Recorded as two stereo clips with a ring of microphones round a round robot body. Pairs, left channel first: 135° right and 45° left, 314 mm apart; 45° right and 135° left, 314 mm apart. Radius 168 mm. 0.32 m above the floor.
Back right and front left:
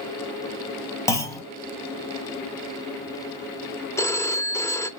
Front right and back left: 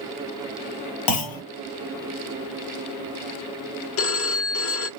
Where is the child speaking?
No child speaking in this recording.